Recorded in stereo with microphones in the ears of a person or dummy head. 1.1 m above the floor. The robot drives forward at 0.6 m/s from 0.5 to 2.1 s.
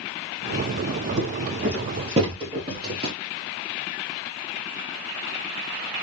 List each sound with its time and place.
1.2 s footsteps: 30° right (ahead or behind), 1.8 m; by 3.1 s 25° right (ahead or behind), 1.1 m